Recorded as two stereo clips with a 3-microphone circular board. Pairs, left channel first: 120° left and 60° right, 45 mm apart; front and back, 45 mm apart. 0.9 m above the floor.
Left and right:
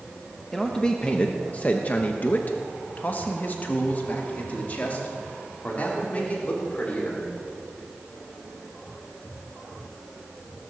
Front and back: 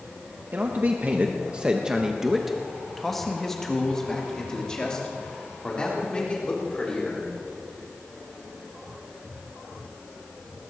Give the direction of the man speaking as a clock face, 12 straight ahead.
5 o'clock.